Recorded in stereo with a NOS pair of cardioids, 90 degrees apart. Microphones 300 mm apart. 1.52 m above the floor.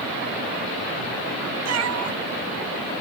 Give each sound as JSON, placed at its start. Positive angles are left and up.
{"t": 1.6, "sound": "a cat meowing", "azimuth_deg": -60}